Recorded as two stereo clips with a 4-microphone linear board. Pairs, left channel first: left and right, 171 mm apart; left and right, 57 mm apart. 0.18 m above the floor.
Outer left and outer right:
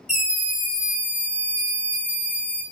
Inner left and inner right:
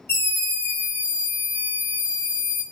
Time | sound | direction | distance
0.1 | a scream | 45° left (ahead or behind) | 1.8 m